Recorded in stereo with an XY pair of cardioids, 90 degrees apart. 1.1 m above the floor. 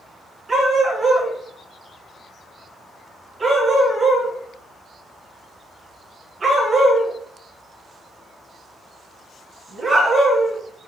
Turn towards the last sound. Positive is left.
turn(degrees=-35)